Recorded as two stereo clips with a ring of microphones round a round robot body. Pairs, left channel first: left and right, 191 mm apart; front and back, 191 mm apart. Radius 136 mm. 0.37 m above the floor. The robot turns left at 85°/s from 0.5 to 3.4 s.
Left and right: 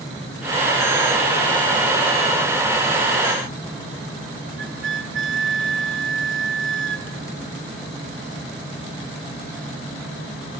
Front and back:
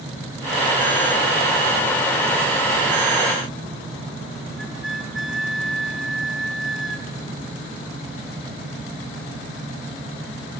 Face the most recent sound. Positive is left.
turn(degrees=-90)